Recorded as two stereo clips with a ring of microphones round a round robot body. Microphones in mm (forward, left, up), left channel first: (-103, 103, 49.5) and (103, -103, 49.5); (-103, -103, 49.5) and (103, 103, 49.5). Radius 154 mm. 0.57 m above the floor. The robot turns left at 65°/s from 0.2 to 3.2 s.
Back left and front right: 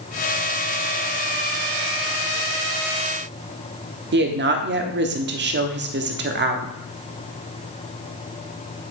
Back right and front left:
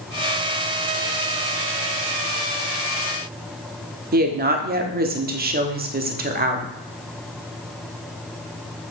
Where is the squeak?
No squeak in this recording.